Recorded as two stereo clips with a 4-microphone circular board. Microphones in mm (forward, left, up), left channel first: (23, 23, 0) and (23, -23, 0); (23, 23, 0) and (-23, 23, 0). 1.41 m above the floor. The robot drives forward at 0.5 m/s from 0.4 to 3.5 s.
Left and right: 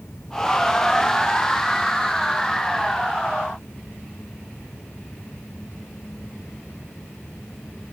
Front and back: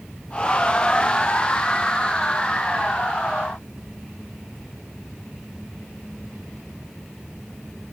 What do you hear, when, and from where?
Only background noise.